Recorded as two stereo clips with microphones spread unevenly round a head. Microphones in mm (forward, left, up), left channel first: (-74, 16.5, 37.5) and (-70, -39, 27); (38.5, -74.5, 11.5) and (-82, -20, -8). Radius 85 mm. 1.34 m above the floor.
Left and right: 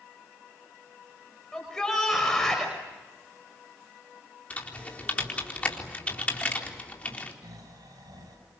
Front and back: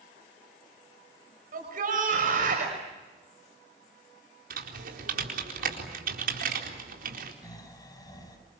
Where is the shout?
170° left, 5.5 m.